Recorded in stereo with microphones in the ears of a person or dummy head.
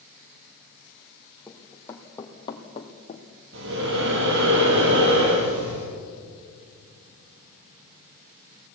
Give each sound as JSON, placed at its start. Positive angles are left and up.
{"t": 1.5, "sound": "running footsteps", "side_deg": 10, "distance_m": 3.0}
{"t": 3.5, "sound": "breathing", "side_deg": -65, "distance_m": 5.0}